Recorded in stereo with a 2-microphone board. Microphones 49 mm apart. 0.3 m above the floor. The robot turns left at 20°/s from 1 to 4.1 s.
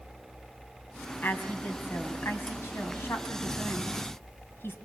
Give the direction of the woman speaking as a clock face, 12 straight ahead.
8 o'clock.